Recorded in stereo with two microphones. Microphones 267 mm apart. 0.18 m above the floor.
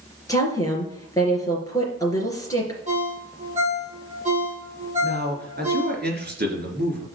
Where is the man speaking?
40° right (ahead or behind), 3 m.